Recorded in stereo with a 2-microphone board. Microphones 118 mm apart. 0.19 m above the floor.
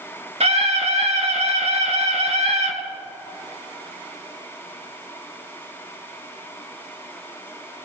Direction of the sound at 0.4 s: 60° right (ahead or behind).